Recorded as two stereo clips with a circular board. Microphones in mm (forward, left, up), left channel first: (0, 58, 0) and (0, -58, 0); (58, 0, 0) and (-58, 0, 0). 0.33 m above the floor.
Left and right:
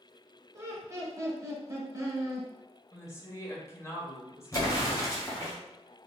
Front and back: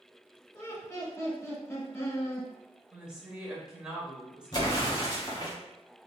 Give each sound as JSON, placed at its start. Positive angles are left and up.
{"t": 0.5, "sound": "laughter", "azimuth_deg": -50, "distance_m": 1.2}
{"t": 2.9, "sound": "a woman speaking", "azimuth_deg": 105, "distance_m": 0.9}
{"t": 4.5, "sound": "an explosion", "azimuth_deg": 40, "distance_m": 2.0}